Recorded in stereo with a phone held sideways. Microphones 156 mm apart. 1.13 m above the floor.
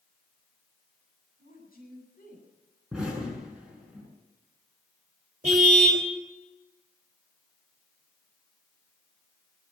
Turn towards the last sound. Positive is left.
turn(degrees=-50)  # may be behind; listen again after turning